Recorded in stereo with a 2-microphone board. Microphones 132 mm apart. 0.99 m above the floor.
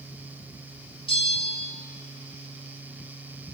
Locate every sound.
1.1 s a bell: 45° left (ahead or behind), 1.9 m